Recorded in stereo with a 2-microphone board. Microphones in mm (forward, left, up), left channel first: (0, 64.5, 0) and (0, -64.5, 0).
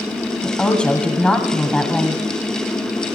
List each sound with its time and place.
0.4 s a woman speaking: 10° left (ahead or behind), 1.6 m